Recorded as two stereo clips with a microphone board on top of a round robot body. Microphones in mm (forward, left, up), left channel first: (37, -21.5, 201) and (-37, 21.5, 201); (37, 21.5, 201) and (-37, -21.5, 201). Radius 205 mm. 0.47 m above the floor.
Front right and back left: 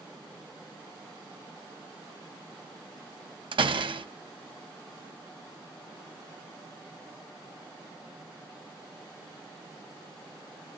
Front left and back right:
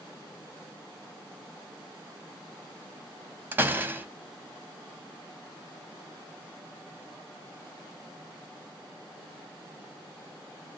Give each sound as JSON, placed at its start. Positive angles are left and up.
{"t": 3.5, "sound": "a door slam", "azimuth_deg": 145, "distance_m": 0.7}